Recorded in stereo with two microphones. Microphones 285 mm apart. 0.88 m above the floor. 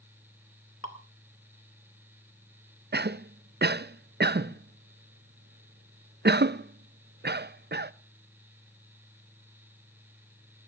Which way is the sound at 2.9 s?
40° right (ahead or behind).